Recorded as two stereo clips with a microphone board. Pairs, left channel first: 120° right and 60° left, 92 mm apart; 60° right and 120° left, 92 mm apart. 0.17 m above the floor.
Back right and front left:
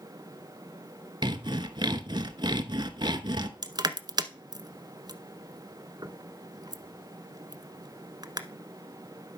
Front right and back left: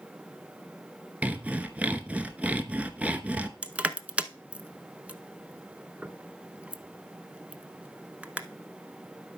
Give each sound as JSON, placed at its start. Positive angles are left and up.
{"t": 1.2, "sound": "sawing", "azimuth_deg": 45, "distance_m": 0.9}
{"t": 3.6, "sound": "crushing", "azimuth_deg": 45, "distance_m": 0.8}